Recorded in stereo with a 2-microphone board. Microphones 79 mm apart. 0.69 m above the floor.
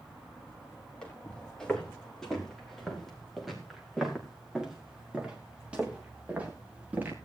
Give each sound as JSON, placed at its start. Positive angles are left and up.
{"t": 1.0, "sound": "footsteps", "side_deg": 10, "distance_m": 7.0}